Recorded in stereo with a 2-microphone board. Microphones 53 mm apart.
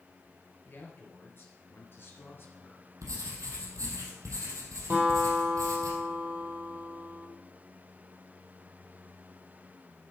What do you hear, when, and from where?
0.7 s a man speaking: 40° left (ahead or behind), 4 m; by 2.9 s 35° left (ahead or behind), 2 m
3.0 s writing: 80° right, 3 m
4.9 s a guitar: 40° right (ahead or behind), 4 m